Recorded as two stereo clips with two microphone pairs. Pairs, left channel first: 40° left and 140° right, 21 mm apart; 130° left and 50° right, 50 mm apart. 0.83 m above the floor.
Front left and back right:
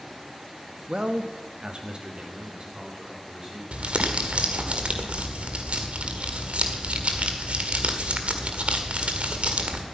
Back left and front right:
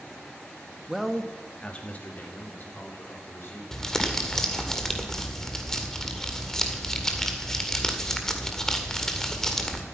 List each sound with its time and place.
0.9 s a man speaking: 130° right, 1.2 m; by 3.6 s 165° left, 3 m
3.7 s crumpling: 150° right, 1.8 m